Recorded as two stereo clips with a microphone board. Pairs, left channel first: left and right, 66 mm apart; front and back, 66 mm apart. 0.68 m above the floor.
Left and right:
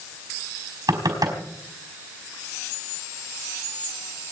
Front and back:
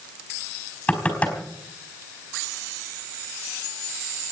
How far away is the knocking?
About 4.5 m.